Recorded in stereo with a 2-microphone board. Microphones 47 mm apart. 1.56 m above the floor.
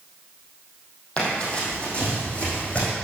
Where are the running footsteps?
25° left (ahead or behind), 3 m; by 2.9 s 30° left (ahead or behind), 5 m.